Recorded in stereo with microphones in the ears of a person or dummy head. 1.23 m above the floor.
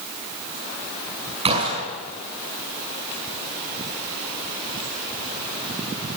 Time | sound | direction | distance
1.4 | a gunshot | 30° right (ahead or behind) | 6.5 m